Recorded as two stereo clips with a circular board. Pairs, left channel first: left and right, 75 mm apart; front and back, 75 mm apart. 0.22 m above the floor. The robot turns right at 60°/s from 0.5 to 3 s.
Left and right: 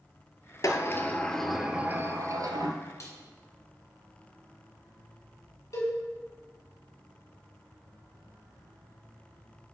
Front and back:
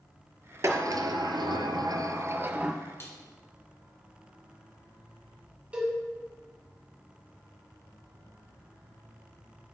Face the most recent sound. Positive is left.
turn(degrees=110)